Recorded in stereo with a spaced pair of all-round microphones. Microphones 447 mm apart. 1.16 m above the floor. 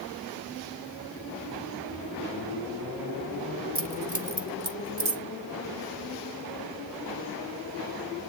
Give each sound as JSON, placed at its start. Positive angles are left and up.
{"t": 3.8, "sound": "keys jangling", "side_deg": -30, "distance_m": 1.6}